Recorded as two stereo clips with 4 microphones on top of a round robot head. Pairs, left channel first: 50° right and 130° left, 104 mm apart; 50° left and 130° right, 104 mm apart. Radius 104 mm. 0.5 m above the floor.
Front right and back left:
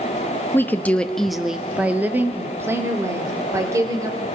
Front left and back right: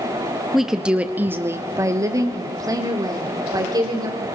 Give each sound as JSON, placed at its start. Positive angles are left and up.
{"t": 0.5, "sound": "a woman speaking", "azimuth_deg": -40, "distance_m": 1.2}